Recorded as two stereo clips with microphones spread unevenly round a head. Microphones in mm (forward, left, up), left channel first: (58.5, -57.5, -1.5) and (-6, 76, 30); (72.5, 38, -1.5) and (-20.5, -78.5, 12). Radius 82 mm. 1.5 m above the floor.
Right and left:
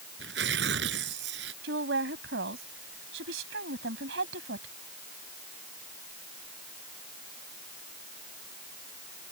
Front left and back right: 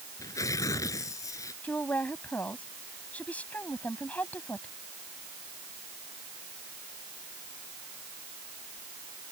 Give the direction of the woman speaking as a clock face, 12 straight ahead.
8 o'clock.